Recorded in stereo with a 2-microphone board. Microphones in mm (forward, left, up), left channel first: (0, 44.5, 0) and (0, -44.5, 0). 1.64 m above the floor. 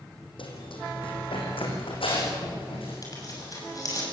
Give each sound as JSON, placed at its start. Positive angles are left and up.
{"t": 0.4, "sound": "running footsteps", "side_deg": 70, "distance_m": 5.0}
{"t": 3.0, "sound": "tearing paper", "side_deg": 40, "distance_m": 7.0}